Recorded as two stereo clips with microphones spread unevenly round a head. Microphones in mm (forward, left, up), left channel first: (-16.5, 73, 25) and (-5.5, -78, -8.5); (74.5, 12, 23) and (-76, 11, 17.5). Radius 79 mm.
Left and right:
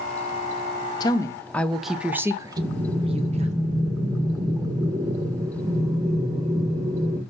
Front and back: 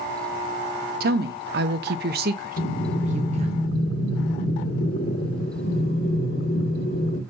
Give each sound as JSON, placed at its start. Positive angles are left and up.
{"t": 1.0, "sound": "a woman speaking", "azimuth_deg": 160, "distance_m": 1.2}
{"t": 2.6, "sound": "breathing", "azimuth_deg": -10, "distance_m": 1.6}